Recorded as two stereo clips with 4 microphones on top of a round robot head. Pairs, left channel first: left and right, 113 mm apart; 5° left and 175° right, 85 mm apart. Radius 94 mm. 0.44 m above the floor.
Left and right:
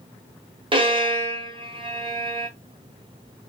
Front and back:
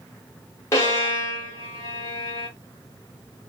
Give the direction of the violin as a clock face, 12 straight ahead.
2 o'clock.